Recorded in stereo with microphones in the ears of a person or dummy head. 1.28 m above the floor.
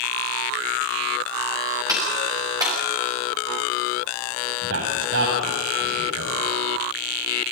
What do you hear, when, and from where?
1.9 s a clap: 15° right (ahead or behind), 8 m
4.6 s a man speaking: 85° right, 9 m